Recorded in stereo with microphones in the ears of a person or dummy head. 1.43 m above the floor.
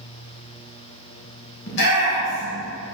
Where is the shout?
65° left (ahead or behind), 1.7 m.